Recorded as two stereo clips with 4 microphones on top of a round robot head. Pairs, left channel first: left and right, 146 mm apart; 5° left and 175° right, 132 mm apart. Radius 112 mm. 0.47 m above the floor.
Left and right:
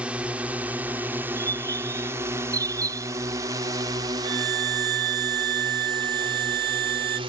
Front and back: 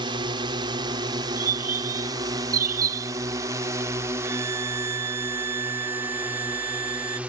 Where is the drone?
165° right; by 7.3 s 100° right.